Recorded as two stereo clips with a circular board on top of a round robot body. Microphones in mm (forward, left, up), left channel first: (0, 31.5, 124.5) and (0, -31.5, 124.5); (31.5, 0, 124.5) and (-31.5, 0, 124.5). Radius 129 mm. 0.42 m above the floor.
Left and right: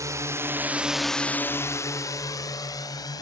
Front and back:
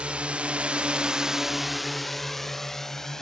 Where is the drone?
110° right; by 3.2 s 85° left.